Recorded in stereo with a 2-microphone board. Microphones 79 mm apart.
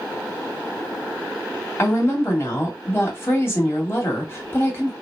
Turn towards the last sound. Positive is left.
turn(degrees=30)  # may be behind; listen again after turning